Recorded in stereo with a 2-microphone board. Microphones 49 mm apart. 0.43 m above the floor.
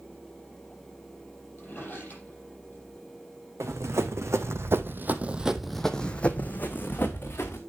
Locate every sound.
1.6 s a drawer: 35° left (ahead or behind), 6.5 m
3.6 s running footsteps: 80° right, 1.7 m; by 7.6 s 45° left (ahead or behind), 2 m